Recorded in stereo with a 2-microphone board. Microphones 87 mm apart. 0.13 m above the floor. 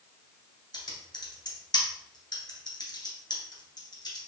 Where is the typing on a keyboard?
55° left (ahead or behind), 1.1 m.